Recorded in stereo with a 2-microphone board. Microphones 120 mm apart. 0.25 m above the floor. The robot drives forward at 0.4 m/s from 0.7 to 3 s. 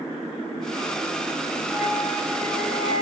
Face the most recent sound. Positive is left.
turn(degrees=-5)  # may be behind; listen again after turning